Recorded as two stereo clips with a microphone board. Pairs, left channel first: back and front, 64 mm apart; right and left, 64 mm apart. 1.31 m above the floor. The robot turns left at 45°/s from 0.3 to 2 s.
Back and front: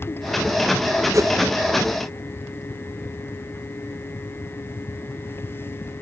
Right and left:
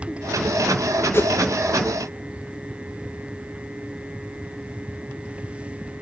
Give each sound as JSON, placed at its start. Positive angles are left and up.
{"t": 1.1, "sound": "a whoosh", "azimuth_deg": -35, "distance_m": 1.1}